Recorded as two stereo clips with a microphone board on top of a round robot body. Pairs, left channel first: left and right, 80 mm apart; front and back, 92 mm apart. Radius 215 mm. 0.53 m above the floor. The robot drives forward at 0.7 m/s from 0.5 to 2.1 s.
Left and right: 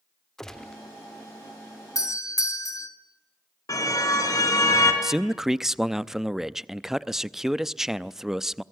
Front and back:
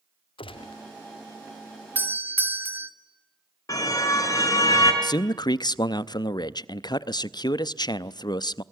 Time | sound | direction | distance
0.4 | a gunshot | 5° left | 1.1 m
1.9 | a doorbell | 115° left | 3 m
3.7 | a car horn | 50° left | 4.5 m
5.0 | a man speaking | 5° right | 0.9 m